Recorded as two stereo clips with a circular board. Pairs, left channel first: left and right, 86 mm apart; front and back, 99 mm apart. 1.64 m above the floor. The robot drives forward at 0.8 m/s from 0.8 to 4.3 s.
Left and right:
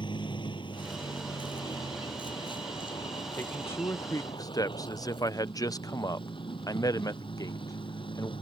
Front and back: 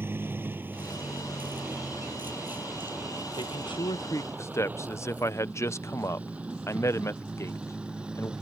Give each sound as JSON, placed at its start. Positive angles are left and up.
{"t": 0.0, "sound": "a vehicle", "azimuth_deg": 115}
{"t": 3.4, "sound": "a man speaking", "azimuth_deg": 25}